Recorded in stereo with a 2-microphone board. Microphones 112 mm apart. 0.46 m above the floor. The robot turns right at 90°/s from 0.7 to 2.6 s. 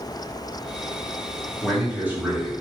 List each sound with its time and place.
1.6 s a man speaking: 5° left (ahead or behind), 1.5 m; by 2.5 s 25° right (ahead or behind), 1.5 m